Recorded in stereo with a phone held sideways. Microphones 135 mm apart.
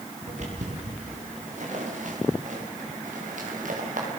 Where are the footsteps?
60° right (ahead or behind), 9.5 m; by 4.1 s 75° right (ahead or behind), 8 m.